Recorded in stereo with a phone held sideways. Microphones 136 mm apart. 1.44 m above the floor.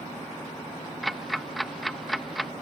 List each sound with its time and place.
1.0 s ticking: centre (ahead or behind)